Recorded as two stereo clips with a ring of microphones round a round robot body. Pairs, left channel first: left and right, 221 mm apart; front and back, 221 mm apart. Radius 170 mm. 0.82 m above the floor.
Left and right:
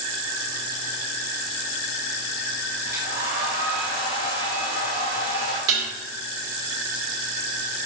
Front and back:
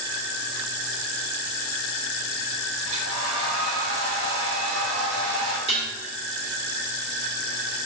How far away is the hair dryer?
About 3 m.